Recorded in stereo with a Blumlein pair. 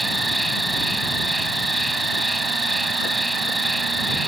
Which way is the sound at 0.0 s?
5° right.